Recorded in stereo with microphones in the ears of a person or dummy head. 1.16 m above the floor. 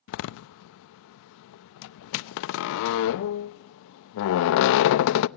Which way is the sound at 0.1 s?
65° left (ahead or behind).